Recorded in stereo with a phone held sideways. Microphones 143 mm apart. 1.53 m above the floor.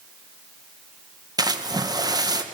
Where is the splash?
25° right (ahead or behind), 1.1 m.